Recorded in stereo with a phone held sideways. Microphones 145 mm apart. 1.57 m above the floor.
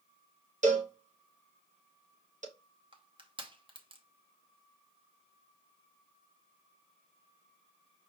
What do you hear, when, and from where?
0.6 s a cowbell: 60° right (ahead or behind), 0.9 m
2.9 s crushing: 35° right (ahead or behind), 0.7 m